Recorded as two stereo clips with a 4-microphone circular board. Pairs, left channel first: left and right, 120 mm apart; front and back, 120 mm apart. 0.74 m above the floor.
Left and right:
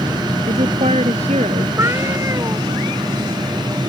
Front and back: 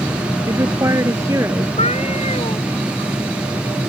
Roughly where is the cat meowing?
Ahead right.